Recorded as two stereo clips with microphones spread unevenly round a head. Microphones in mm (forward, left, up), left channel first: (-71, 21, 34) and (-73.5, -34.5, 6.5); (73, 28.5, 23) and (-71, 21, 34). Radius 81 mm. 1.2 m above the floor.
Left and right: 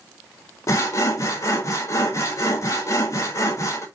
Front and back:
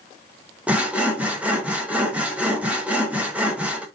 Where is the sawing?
105° left, 0.6 m.